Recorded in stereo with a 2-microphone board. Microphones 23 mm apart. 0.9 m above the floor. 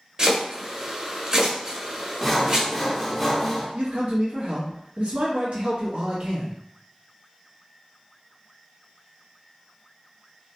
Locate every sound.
0.2 s chopping: 40° right (ahead or behind), 1.2 m
2.2 s sawing: centre (ahead or behind), 0.6 m
3.8 s a man speaking: 70° right (ahead or behind), 0.9 m